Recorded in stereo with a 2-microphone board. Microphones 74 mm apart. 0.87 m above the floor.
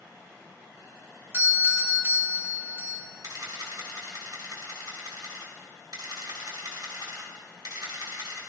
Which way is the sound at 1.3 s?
35° right (ahead or behind).